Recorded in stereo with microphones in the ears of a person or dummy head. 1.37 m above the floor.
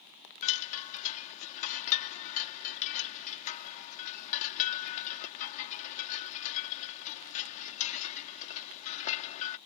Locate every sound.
0.4 s a chime: 40° left (ahead or behind)